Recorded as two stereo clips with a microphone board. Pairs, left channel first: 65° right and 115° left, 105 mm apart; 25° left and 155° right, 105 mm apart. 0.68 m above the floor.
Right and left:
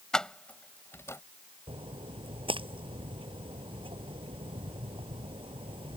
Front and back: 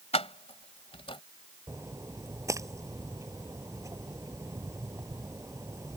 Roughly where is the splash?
Behind left.